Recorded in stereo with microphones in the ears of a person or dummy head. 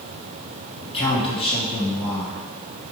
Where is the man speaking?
35° left (ahead or behind), 3 m.